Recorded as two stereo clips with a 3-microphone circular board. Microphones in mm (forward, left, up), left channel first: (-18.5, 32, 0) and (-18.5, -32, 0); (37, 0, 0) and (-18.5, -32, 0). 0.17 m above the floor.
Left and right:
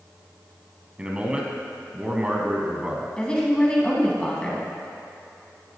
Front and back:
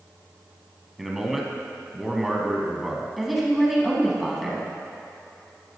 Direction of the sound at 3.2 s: 125° left.